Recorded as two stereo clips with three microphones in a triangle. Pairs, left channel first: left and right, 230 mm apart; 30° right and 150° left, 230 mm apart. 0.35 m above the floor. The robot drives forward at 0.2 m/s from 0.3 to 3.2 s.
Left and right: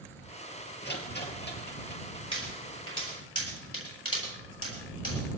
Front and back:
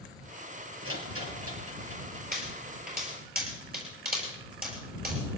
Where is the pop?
100° left, 7 m; by 5.2 s 105° left, 7 m.